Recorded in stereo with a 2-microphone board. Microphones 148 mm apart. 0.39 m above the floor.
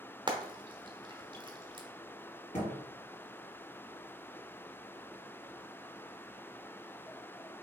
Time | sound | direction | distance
0.3 | frying | 30° right (ahead or behind) | 0.8 m
2.5 | a thud | 55° left (ahead or behind) | 2.5 m